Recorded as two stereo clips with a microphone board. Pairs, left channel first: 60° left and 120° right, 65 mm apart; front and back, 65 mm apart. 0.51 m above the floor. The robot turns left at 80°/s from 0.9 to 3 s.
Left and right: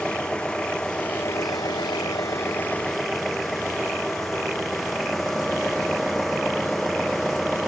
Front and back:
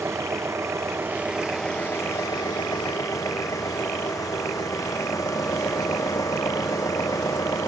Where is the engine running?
135° left; by 7.7 s 30° right.